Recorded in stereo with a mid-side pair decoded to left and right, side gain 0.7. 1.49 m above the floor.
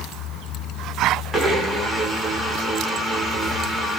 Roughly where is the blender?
Ahead.